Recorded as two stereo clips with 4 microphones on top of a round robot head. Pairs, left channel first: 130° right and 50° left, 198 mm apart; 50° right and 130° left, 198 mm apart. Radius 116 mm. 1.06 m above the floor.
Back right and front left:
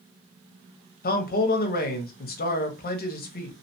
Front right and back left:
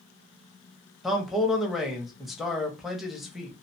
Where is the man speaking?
140° right, 0.6 m.